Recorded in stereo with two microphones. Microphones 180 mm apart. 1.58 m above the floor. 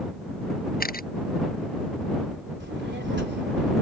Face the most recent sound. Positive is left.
turn(degrees=-85)